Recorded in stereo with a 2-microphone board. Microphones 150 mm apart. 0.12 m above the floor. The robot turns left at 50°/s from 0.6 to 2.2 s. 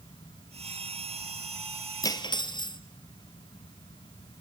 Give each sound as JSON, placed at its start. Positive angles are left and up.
{"t": 2.0, "sound": "cutlery clinking", "side_deg": 25, "distance_m": 1.4}